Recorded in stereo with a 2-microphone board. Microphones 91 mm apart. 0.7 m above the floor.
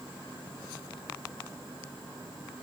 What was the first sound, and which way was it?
Only background noise.